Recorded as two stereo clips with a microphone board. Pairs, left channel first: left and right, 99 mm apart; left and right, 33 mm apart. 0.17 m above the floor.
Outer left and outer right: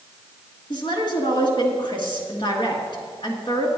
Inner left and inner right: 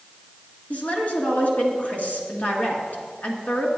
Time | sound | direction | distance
0.7 | a woman speaking | 55° left (ahead or behind) | 2.5 m